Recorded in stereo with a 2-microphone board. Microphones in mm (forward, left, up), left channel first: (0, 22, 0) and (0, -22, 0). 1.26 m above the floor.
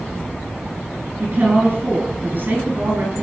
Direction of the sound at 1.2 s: 45° right (ahead or behind).